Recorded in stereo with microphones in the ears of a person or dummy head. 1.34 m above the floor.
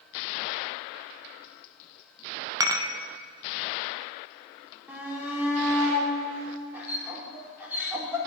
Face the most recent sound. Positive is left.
turn(degrees=-10)  # may be behind; listen again after turning